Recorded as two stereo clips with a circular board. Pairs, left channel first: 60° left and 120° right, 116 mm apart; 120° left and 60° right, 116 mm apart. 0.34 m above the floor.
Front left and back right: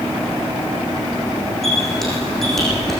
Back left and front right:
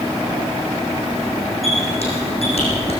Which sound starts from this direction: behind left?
A squeak, at 1.6 s.